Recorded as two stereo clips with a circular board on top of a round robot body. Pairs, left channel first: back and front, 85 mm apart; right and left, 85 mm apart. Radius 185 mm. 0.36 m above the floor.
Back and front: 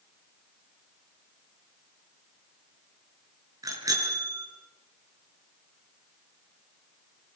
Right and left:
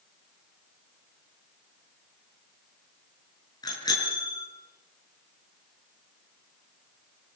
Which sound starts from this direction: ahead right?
A bicycle bell, at 3.6 s.